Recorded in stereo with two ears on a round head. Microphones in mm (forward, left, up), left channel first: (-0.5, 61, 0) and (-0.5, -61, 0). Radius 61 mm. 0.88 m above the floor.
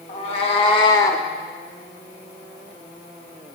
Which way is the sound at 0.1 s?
50° left (ahead or behind).